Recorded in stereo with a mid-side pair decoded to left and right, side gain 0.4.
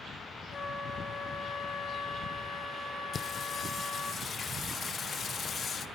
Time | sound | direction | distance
0.5 | a flute | 50° left | 3 m
3.1 | singing | 55° left | 1.2 m